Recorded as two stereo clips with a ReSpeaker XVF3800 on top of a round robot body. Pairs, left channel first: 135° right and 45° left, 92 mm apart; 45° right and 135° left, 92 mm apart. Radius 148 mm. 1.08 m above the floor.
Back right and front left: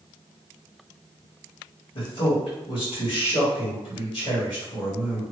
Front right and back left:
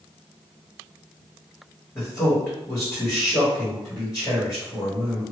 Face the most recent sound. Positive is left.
turn(degrees=-105)